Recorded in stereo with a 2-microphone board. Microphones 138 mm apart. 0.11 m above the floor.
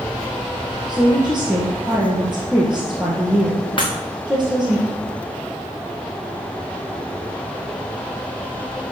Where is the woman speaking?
5° right (ahead or behind), 3 m.